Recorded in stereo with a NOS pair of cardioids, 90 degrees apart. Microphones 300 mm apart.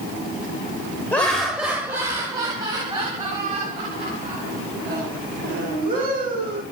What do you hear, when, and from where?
1.1 s laughter: 5° left, 0.9 m; by 6.6 s 30° right, 3.5 m